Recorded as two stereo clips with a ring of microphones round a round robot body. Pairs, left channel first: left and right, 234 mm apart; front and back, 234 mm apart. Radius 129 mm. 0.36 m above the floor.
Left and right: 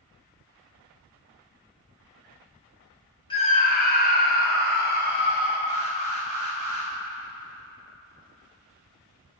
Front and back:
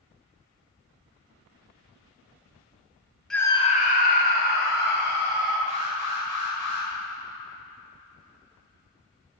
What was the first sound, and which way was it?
A scream, 85° left.